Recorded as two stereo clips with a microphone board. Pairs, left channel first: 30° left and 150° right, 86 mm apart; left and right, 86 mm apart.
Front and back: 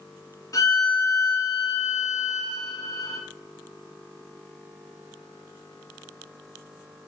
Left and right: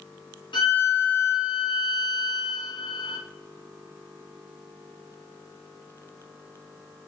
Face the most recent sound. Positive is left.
turn(degrees=80)